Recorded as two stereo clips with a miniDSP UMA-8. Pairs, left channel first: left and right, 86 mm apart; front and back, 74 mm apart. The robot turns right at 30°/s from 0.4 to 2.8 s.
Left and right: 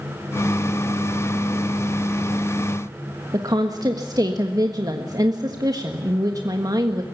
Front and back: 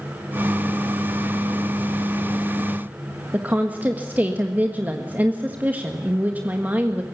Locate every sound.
3.3 s a woman speaking: 115° right, 1.5 m